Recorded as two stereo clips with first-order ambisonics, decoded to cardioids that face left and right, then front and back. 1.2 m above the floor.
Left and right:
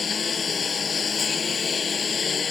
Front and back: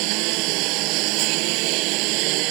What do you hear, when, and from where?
0.0 s a lawn mower: 160° left